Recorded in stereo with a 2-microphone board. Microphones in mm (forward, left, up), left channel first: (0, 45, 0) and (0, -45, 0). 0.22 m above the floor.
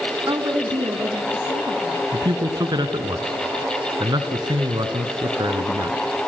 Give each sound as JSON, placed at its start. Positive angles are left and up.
{"t": 0.3, "sound": "a woman speaking", "side_deg": -45, "distance_m": 2.0}
{"t": 2.1, "sound": "a man speaking", "side_deg": -55, "distance_m": 2.0}